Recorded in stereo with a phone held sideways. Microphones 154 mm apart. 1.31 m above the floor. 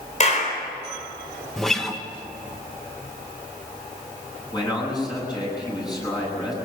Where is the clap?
50° left (ahead or behind), 4 m.